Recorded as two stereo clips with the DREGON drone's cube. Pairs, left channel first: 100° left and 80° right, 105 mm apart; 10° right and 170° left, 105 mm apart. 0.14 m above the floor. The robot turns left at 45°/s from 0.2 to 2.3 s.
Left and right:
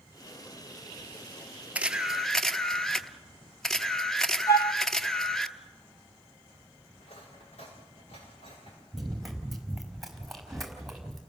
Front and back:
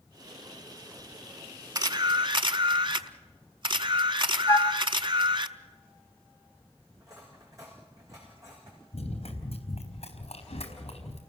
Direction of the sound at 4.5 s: 45° left.